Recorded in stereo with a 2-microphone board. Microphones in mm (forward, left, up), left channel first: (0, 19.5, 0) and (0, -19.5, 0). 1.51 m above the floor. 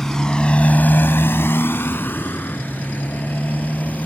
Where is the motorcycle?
10° left (ahead or behind); by 4.1 s 45° left (ahead or behind).